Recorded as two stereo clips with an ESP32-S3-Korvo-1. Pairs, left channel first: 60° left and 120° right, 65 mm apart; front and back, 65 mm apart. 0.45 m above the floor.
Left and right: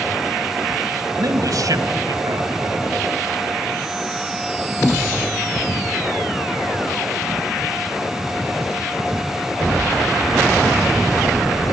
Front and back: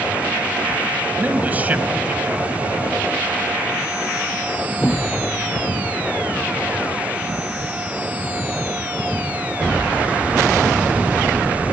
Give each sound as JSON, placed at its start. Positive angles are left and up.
{"t": 1.2, "sound": "a man speaking", "azimuth_deg": -115, "distance_m": 2.0}